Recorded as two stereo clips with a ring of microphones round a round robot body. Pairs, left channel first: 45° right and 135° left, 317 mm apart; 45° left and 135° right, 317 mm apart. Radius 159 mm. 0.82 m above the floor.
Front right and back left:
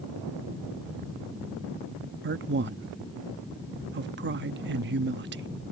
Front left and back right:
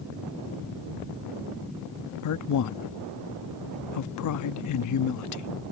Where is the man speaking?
80° left.